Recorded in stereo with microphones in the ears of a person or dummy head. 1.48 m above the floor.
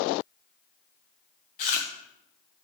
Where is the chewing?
30° left (ahead or behind), 0.6 m.